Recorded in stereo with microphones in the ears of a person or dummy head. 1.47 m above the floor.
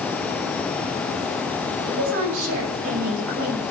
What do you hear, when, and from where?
1.8 s a woman speaking: 80° right, 7.5 m; by 3.6 s 85° right, 6 m